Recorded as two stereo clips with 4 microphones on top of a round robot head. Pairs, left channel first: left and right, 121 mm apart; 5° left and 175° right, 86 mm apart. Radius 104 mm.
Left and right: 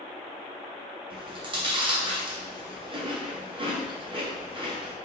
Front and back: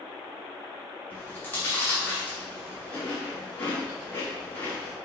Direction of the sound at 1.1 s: 60° right.